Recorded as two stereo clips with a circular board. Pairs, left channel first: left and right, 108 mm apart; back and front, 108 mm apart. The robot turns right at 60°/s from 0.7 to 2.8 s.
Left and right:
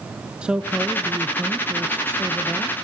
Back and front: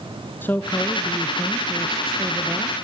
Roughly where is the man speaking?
Behind right.